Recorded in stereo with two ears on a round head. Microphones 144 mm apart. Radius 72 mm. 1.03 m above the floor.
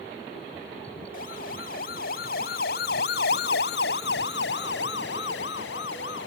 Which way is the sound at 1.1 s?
55° left (ahead or behind).